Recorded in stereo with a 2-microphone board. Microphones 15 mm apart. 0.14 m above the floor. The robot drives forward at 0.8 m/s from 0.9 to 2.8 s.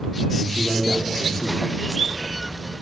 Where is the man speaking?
15° left (ahead or behind), 8.5 m.